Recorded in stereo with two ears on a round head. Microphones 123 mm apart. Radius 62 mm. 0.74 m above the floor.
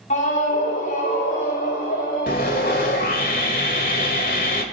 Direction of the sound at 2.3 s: 65° left (ahead or behind).